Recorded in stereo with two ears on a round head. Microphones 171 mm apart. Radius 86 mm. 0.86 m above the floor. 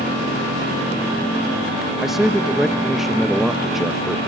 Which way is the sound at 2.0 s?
Centre (ahead or behind).